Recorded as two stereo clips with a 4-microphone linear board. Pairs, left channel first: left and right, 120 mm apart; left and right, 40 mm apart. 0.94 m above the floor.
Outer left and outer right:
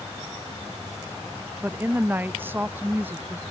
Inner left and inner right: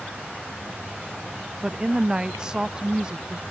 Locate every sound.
1.6 s a woman speaking: 15° right (ahead or behind)